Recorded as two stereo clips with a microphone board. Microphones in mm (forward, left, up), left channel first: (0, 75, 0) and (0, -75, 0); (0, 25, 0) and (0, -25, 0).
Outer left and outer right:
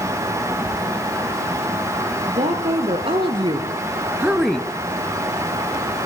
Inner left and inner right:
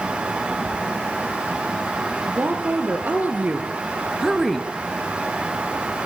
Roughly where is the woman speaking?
Right.